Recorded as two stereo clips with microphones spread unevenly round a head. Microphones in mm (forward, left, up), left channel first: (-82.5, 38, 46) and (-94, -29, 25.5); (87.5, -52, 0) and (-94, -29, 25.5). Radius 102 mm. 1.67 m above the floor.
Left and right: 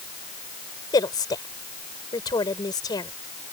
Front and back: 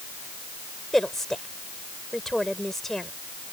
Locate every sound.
0.9 s a woman speaking: 85° left